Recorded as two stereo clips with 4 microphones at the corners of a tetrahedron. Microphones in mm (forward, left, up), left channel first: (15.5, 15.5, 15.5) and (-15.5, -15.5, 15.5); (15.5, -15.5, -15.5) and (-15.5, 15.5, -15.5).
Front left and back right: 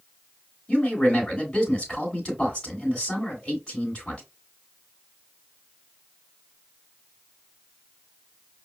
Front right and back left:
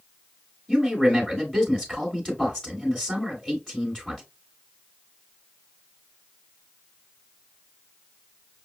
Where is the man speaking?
25° left, 1.7 m.